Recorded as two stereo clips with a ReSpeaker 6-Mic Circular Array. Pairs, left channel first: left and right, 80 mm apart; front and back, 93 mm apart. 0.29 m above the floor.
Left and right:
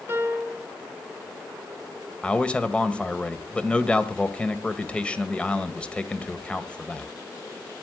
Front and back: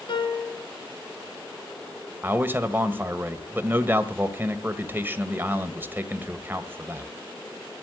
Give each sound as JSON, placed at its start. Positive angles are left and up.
{"t": 0.1, "sound": "a piano", "azimuth_deg": -30, "distance_m": 3.0}
{"t": 2.2, "sound": "a man speaking", "azimuth_deg": 145, "distance_m": 1.3}